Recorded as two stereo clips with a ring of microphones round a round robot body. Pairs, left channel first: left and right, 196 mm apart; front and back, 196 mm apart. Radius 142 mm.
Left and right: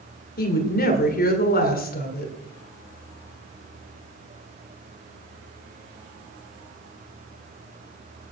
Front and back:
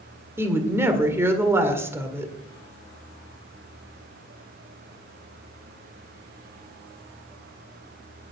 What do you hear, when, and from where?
0.4 s a woman speaking: 105° left, 1.8 m